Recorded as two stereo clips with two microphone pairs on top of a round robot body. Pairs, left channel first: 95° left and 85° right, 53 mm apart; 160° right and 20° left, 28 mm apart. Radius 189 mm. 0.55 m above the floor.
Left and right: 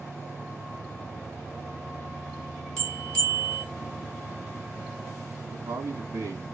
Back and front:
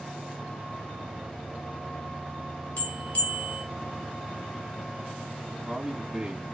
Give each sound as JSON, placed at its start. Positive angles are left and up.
{"t": 2.8, "sound": "a bell", "azimuth_deg": 170, "distance_m": 2.5}
{"t": 5.5, "sound": "a man speaking", "azimuth_deg": -55, "distance_m": 1.6}